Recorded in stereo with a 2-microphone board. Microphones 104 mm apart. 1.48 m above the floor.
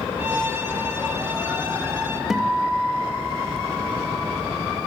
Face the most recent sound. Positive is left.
turn(degrees=-5)  # may be behind; listen again after turning